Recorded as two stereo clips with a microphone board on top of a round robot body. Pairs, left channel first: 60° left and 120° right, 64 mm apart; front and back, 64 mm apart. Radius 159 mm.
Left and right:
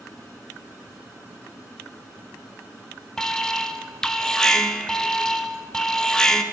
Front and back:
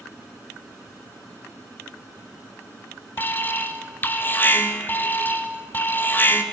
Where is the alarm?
10° right, 0.7 m.